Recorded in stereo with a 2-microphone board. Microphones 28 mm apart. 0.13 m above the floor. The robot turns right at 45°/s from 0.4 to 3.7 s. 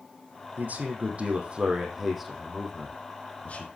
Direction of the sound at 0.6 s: 80° right.